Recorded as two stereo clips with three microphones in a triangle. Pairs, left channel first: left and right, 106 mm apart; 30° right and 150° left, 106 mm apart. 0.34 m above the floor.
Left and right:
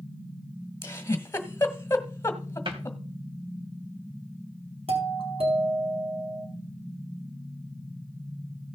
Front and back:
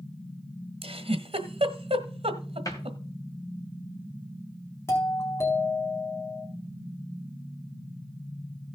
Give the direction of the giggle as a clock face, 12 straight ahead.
7 o'clock.